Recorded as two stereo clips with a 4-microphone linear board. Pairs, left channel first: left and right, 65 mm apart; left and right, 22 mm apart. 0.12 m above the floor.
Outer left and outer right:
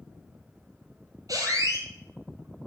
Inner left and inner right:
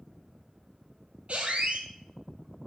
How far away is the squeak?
About 0.6 m.